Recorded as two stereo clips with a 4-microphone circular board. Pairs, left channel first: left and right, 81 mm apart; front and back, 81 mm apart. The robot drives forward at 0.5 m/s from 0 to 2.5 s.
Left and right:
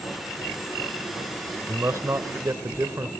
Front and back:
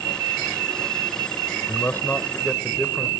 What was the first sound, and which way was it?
A man speaking, 50° right.